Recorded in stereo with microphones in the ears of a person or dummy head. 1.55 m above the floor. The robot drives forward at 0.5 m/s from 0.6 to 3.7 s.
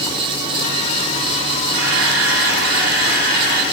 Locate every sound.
1.7 s a camera shutter: 80° right, 2.5 m; by 3.6 s 60° right (ahead or behind), 3 m